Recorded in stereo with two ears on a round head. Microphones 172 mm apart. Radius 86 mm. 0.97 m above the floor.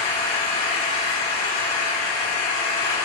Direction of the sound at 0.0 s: 75° left (ahead or behind).